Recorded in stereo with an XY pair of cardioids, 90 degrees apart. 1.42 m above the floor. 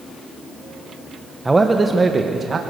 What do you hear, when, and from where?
1.4 s a man speaking: 15° right, 1.3 m; by 2.6 s 45° right, 1.8 m